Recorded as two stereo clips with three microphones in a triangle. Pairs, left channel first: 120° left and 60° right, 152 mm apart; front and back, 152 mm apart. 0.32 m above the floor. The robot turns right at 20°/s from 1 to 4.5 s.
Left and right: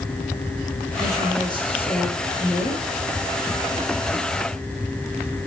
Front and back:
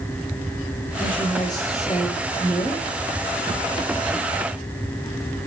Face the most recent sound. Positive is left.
turn(degrees=120)